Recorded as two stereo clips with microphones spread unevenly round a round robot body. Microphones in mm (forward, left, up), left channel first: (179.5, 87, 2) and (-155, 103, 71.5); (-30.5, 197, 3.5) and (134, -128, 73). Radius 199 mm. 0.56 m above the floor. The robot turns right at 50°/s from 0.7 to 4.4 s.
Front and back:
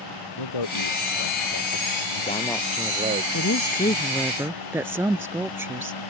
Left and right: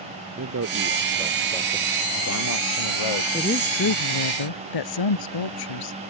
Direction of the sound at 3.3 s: 40° left.